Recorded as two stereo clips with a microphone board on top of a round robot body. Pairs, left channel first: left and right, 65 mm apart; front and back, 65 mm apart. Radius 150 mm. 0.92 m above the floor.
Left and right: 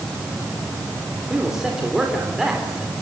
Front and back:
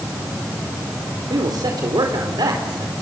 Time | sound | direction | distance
1.3 | a man speaking | 175° right | 4 m